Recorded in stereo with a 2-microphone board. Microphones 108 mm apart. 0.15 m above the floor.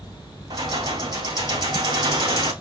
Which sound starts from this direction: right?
Keys jangling, at 0.5 s.